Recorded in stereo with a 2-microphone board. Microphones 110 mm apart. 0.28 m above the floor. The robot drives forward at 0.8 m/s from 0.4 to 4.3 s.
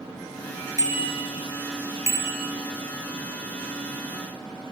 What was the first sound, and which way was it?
A bicycle bell, 35° right (ahead or behind).